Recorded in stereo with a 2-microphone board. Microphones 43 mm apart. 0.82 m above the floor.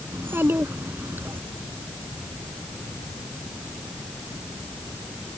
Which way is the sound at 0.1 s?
60° right (ahead or behind).